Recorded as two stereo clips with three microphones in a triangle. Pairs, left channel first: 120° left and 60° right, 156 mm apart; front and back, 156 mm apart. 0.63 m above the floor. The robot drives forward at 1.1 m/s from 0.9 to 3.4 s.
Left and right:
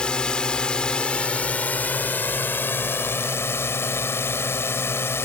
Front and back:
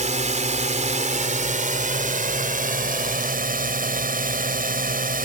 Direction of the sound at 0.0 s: 160° right.